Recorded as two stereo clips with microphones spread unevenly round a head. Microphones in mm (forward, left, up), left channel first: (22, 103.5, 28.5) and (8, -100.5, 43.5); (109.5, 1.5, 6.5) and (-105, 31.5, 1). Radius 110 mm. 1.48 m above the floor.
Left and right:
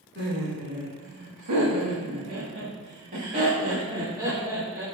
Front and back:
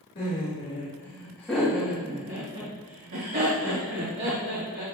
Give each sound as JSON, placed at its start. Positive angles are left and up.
{"t": 0.1, "sound": "laughter", "azimuth_deg": -60, "distance_m": 3.5}